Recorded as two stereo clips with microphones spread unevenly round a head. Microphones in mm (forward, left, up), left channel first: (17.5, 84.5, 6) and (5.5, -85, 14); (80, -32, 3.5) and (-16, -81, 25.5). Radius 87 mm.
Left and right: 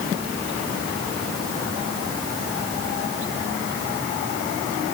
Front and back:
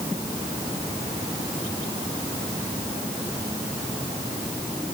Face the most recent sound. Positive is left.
No sound to turn to.